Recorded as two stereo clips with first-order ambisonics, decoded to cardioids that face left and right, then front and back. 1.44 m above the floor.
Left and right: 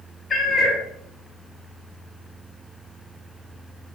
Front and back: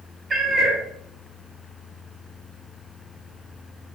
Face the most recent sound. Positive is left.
turn(degrees=135)